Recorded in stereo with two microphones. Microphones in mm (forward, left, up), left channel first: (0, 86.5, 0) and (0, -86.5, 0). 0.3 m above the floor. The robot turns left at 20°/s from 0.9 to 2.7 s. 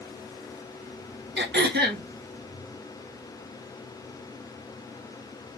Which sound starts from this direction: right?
Throat clearing, at 1.4 s.